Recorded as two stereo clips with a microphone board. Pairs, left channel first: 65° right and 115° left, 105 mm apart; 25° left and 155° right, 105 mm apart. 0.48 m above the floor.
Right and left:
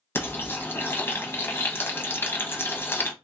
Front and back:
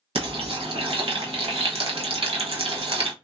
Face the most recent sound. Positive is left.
turn(degrees=-135)